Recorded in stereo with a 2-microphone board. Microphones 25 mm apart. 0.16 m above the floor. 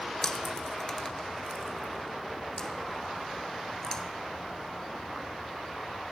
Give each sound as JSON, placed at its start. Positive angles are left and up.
{"t": 0.2, "sound": "chewing", "side_deg": 25, "distance_m": 1.0}